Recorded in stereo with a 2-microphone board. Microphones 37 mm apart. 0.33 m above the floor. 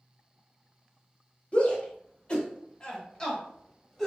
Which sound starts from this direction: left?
A shout, at 1.5 s.